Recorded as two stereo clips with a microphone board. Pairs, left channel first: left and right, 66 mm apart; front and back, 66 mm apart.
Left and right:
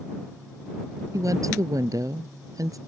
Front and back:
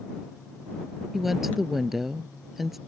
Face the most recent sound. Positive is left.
turn(degrees=-95)